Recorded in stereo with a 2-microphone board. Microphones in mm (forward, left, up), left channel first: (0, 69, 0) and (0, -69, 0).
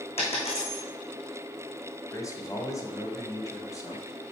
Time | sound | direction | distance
0.2 | a dropped coin | 50° left (ahead or behind) | 3.5 m
2.1 | a man speaking | 25° left (ahead or behind) | 1.6 m